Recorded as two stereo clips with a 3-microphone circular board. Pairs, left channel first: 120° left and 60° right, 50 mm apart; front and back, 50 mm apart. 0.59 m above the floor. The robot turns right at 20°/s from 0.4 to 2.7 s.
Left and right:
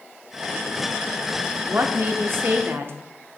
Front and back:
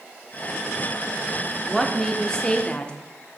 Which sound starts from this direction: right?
A woman speaking, at 1.7 s.